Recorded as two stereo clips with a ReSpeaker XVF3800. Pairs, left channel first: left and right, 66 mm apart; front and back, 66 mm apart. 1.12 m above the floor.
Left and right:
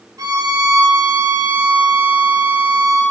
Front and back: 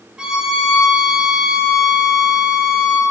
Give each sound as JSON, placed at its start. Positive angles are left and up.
{"t": 0.2, "sound": "a violin", "azimuth_deg": -100, "distance_m": 2.0}